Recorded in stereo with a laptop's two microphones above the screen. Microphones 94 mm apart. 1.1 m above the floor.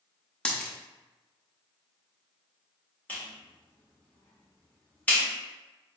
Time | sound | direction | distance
0.5 | a dropped coin | 10° left (ahead or behind) | 0.5 m
3.1 | a clap | 20° left (ahead or behind) | 2.0 m